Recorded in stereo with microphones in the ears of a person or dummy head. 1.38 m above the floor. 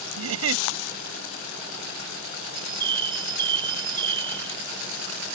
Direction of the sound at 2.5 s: 30° right (ahead or behind).